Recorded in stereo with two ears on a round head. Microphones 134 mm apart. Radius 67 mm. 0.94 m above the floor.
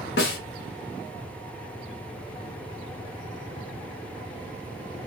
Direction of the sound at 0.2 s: 75° left (ahead or behind).